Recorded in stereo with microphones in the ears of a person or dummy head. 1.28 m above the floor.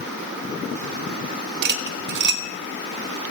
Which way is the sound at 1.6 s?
55° right (ahead or behind).